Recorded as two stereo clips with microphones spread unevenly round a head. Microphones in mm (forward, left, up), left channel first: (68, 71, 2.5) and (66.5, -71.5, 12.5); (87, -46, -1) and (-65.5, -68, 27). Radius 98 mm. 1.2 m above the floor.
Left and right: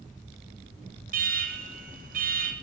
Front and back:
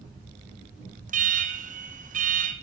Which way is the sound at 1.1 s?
135° right.